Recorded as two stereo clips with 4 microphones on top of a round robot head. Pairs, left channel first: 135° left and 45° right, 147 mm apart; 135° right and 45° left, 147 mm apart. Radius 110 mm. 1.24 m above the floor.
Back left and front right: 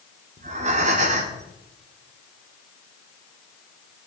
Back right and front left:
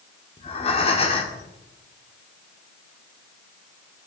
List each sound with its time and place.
0.4 s breathing: 85° right, 1.7 m